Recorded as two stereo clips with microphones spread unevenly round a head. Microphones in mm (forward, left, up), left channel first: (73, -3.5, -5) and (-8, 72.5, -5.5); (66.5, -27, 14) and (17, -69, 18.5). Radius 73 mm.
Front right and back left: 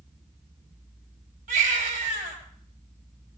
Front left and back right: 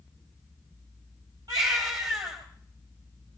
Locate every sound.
1.5 s a baby crying: 160° left, 5 m